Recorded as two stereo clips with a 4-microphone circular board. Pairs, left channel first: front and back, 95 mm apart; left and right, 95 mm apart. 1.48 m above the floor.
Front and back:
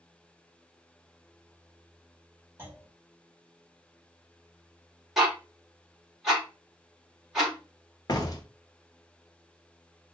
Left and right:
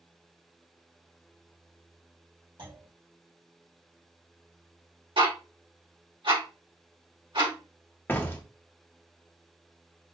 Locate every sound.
2.6 s a clunk: 115° right, 1.7 m
5.2 s ticking: 90° right, 1.8 m
8.1 s a door slam: 30° left, 0.6 m